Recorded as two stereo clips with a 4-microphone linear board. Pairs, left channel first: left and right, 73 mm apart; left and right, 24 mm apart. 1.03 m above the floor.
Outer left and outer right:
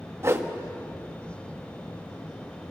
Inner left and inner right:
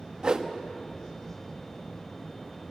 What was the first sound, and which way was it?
A whoosh, 40° right (ahead or behind).